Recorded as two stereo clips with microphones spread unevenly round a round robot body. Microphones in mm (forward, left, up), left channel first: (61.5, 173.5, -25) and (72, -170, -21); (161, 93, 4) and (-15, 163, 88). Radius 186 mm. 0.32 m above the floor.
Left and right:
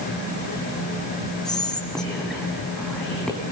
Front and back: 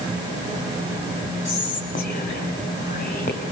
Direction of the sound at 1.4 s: 5° left.